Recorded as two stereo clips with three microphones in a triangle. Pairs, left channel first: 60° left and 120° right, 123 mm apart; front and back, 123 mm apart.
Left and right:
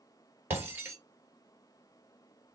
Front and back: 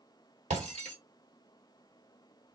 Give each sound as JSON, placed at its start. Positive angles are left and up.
{"t": 0.5, "sound": "breaking glass", "azimuth_deg": 165, "distance_m": 1.5}